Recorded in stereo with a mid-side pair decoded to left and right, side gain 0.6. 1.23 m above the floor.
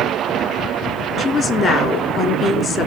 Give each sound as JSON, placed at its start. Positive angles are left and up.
{"t": 1.2, "sound": "a woman speaking", "azimuth_deg": 35, "distance_m": 3.0}